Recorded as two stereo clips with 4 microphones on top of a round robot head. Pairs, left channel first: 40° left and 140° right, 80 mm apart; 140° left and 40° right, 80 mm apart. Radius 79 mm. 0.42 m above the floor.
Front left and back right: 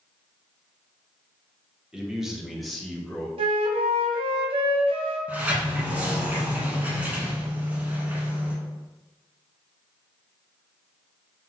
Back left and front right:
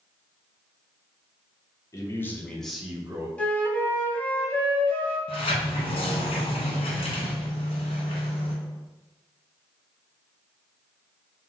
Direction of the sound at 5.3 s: 150° left.